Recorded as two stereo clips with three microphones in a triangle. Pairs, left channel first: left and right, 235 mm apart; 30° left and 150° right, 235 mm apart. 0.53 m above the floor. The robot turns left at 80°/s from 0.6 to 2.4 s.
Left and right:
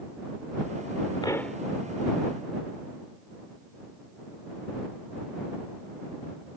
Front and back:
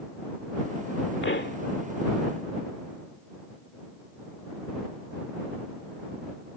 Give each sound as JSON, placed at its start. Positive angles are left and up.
{"t": 1.2, "sound": "a pop", "azimuth_deg": 25}